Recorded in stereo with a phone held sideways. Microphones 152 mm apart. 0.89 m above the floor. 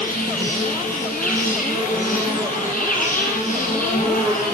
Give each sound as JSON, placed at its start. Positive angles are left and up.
{"t": 0.0, "sound": "an insect", "side_deg": 65, "distance_m": 2.5}